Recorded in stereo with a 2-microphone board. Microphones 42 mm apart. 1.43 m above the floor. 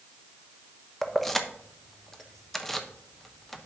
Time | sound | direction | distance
1.0 | keys jangling | 10° left (ahead or behind) | 0.8 m